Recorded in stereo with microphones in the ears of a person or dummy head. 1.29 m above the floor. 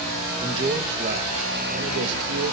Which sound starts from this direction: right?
A man speaking, at 0.4 s.